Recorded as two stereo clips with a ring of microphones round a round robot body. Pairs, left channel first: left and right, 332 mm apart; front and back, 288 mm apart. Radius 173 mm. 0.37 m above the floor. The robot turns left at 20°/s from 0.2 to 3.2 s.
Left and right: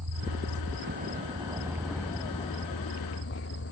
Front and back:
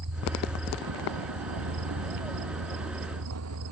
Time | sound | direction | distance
0.0 | a vehicle | 135° right | ?